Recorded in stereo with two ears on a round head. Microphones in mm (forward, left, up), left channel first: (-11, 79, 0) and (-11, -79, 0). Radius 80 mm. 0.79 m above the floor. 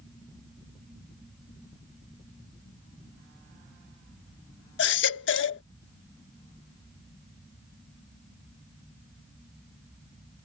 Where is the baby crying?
75° left (ahead or behind).